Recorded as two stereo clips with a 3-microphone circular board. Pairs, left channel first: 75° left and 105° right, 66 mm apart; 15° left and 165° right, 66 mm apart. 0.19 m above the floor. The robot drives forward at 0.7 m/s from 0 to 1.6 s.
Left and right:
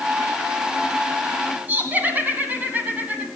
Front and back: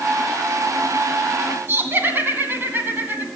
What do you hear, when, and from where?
1.7 s laughter: 150° right, 2.0 m